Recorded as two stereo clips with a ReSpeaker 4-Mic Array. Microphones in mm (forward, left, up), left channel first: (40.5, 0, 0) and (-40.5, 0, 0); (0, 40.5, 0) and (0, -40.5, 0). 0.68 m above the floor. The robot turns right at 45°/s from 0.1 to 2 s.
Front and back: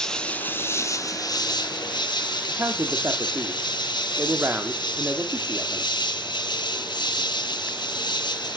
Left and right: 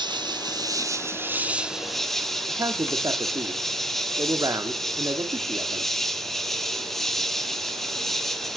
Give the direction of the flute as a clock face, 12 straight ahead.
No flute in this recording.